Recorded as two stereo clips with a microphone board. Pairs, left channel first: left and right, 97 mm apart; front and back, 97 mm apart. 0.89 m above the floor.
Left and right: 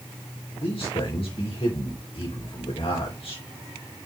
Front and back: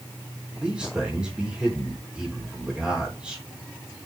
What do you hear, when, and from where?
0.6 s a man speaking: 100° left, 3.5 m